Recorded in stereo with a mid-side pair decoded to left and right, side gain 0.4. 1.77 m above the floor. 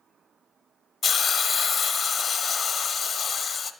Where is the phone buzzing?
No phone buzzing in this recording.